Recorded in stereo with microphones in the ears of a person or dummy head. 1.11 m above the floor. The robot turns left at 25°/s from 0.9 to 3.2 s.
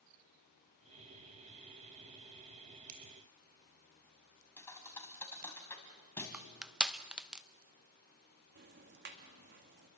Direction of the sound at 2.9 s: 40° right (ahead or behind).